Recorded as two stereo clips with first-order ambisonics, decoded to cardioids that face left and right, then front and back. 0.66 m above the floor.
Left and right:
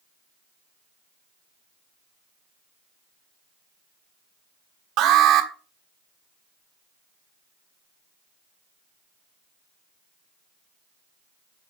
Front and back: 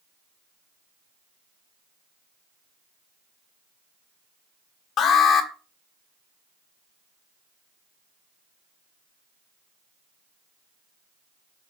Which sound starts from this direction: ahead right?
An alarm, at 5.0 s.